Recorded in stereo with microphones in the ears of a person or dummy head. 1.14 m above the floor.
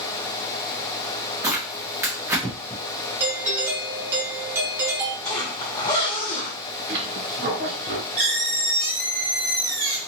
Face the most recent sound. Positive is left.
turn(degrees=-45)  # may be behind; listen again after turning